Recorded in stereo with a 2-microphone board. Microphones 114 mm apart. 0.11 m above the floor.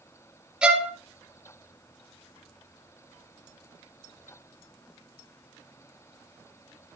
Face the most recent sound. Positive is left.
turn(degrees=-5)  # may be behind; listen again after turning